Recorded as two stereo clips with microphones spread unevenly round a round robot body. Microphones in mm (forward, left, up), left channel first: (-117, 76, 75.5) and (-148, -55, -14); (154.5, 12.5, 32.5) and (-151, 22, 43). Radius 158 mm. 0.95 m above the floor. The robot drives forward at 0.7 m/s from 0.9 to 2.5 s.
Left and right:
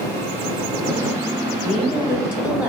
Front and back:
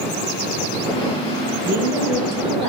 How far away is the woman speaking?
About 2 m.